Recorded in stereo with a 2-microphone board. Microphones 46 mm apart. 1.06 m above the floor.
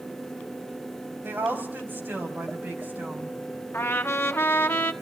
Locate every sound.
1.2 s a woman speaking: 50° right (ahead or behind), 5.5 m; by 3.4 s 40° right (ahead or behind), 6.5 m
3.7 s a trumpet: 60° left (ahead or behind), 1.5 m